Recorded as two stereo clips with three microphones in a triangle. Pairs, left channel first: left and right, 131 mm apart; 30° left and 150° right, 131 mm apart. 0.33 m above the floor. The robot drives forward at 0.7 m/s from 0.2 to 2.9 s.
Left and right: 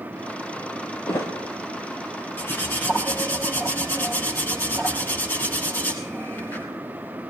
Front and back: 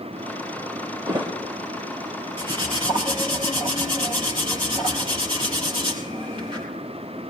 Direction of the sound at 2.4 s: 165° left.